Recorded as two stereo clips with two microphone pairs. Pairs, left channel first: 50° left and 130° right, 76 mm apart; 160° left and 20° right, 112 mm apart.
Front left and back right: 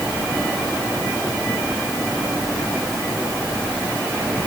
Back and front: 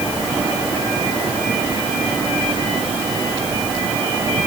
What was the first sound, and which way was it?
Only background noise.